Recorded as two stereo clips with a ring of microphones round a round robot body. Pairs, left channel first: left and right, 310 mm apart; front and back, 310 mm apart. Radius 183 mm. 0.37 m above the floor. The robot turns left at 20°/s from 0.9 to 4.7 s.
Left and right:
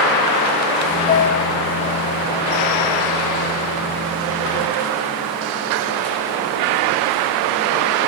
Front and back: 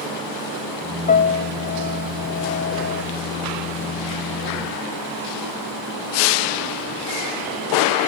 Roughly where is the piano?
Ahead left.